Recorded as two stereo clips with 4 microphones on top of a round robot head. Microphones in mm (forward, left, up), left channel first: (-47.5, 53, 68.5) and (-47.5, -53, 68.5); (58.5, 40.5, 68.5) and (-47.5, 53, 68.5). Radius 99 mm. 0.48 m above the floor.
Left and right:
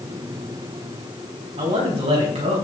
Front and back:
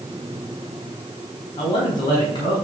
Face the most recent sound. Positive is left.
turn(degrees=-60)